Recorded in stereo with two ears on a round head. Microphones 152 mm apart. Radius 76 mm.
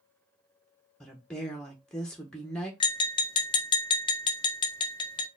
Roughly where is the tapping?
Left.